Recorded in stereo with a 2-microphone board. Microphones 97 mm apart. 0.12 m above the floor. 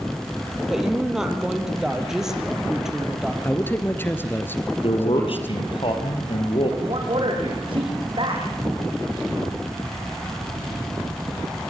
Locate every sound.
0.7 s a woman speaking: 5° right (ahead or behind), 3.5 m
3.4 s a man speaking: 20° left (ahead or behind), 2.0 m
4.8 s a man speaking: 65° left (ahead or behind), 4 m
6.8 s a man speaking: 60° right (ahead or behind), 6.5 m